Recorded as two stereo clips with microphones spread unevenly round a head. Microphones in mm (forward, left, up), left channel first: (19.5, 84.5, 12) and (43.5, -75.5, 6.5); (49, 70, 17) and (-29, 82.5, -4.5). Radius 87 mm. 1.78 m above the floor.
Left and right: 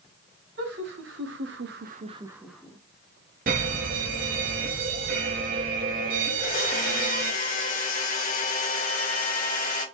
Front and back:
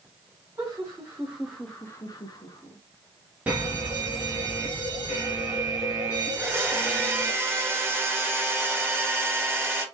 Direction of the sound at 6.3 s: 105° left.